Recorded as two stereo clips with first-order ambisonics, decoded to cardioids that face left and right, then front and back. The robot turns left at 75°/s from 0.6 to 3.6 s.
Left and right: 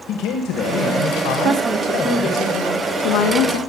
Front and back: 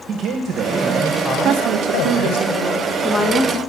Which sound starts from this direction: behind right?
A woman speaking, at 1.4 s.